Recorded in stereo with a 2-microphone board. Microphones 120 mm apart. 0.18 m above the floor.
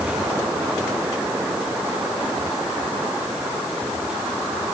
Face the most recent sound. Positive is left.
No sound to turn to.